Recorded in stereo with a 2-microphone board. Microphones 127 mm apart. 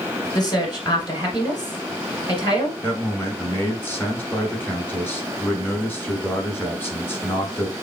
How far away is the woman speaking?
About 1.3 m.